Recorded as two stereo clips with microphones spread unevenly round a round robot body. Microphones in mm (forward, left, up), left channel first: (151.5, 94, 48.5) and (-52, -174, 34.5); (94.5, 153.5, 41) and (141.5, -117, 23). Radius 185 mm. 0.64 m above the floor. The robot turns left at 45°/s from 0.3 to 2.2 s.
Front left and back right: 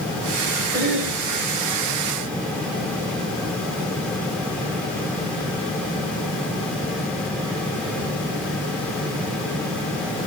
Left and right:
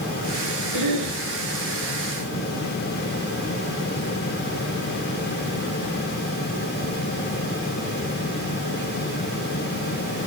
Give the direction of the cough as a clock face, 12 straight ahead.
2 o'clock.